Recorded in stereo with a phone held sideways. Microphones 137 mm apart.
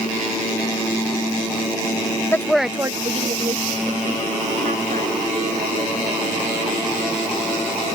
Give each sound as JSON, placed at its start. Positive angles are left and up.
{"t": 2.3, "sound": "a woman speaking", "side_deg": 20}